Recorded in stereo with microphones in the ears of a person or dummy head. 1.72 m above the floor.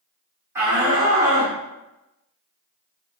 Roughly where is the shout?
Centre.